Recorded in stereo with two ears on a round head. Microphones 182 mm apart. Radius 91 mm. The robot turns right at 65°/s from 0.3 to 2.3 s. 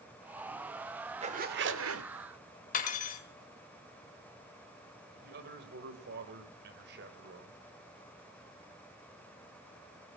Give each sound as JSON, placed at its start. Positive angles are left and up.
{"t": 1.2, "sound": "a zipper", "azimuth_deg": -150, "distance_m": 1.8}
{"t": 2.7, "sound": "cutlery clinking", "side_deg": 40, "distance_m": 2.0}
{"t": 5.2, "sound": "a man speaking", "side_deg": -55, "distance_m": 4.0}